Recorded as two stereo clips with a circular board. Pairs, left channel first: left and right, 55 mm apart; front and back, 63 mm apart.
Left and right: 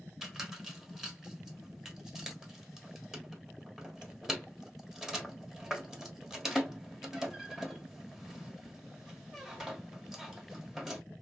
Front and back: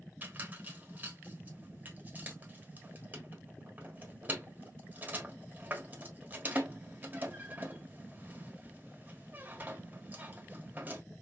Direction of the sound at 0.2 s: 170° right.